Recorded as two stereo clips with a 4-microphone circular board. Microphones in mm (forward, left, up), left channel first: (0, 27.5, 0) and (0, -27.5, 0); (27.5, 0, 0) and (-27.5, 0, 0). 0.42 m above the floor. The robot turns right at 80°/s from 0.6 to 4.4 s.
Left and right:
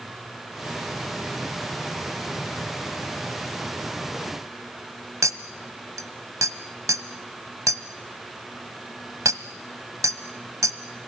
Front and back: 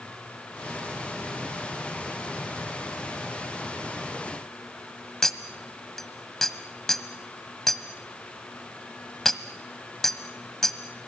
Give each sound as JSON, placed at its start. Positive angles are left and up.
{"t": 5.2, "sound": "a clink", "azimuth_deg": -80, "distance_m": 1.4}